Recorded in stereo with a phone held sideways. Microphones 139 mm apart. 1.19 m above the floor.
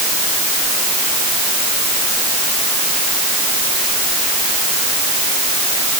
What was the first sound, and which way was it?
Only background noise.